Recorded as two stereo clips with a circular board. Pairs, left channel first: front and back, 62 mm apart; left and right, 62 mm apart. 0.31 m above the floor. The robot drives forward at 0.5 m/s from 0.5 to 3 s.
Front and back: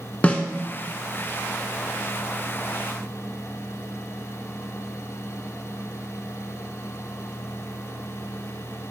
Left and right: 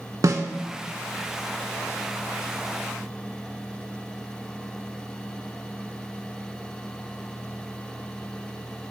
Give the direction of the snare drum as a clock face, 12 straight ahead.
2 o'clock.